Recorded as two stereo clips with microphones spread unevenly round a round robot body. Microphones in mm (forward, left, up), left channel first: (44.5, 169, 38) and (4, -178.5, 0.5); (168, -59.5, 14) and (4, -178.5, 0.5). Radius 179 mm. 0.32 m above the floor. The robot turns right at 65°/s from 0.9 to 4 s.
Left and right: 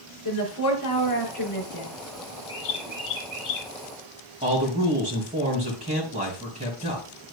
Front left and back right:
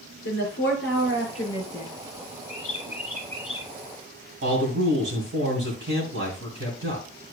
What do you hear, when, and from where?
0.2 s a woman speaking: 45° left, 4.5 m; by 1.9 s 110° left, 4.5 m
2.5 s a bird: 50° left, 3 m; by 3.7 s 125° left, 3 m
4.4 s a man speaking: 160° right, 2.5 m